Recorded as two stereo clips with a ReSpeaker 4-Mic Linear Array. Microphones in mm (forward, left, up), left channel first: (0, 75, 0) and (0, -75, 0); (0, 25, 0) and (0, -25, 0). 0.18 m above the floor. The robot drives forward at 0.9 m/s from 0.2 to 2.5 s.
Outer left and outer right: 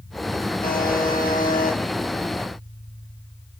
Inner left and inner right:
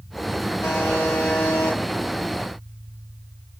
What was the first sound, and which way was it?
A buzzer, 75° left (ahead or behind).